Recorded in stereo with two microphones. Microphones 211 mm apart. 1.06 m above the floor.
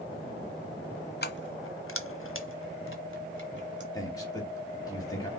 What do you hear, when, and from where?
1.2 s keys jangling: 50° left (ahead or behind), 0.6 m; by 3.8 s 55° left (ahead or behind), 1.7 m
3.9 s a man speaking: 15° left (ahead or behind), 1.7 m